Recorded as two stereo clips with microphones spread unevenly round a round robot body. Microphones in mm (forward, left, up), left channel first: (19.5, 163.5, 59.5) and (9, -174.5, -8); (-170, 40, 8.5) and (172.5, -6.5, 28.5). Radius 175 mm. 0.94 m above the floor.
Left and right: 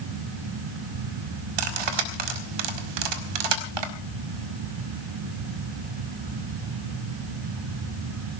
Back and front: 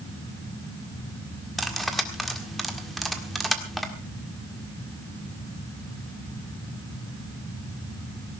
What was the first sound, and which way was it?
Cutlery clinking, 100° right.